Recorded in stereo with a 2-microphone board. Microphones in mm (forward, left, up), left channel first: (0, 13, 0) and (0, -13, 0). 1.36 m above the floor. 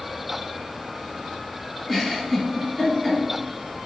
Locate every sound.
1.9 s a giggle: centre (ahead or behind), 1.2 m